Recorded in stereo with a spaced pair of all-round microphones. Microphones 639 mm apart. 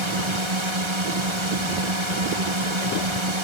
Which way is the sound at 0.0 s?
45° right (ahead or behind).